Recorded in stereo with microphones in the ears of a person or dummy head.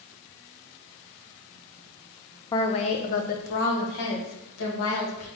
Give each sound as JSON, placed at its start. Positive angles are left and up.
{"t": 2.5, "sound": "a woman speaking", "side_deg": 20, "distance_m": 0.5}